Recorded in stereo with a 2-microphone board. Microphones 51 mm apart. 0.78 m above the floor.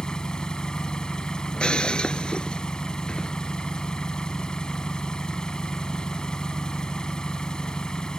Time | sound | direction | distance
0.0 | an engine running | 15° left (ahead or behind) | ?
1.5 | breaking glass | 20° left (ahead or behind) | ?